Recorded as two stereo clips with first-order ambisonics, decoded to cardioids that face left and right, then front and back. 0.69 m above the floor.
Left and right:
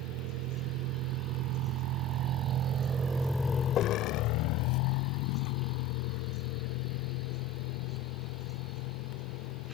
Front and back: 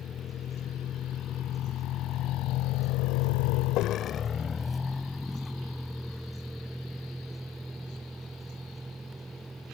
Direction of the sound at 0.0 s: 65° right.